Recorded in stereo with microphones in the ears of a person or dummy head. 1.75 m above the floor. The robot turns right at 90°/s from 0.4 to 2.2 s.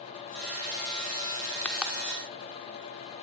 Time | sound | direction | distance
1.6 | a pop | 15° left (ahead or behind) | 3 m